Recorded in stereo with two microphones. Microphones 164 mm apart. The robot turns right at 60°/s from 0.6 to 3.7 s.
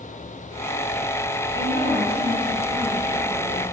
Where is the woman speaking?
115° right, 1.5 m; by 3.6 s 10° left, 1.5 m.